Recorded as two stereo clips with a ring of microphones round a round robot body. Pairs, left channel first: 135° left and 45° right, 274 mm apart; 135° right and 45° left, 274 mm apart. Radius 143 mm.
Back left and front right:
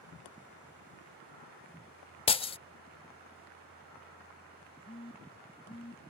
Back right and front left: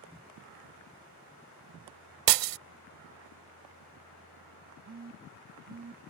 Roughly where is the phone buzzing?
Left.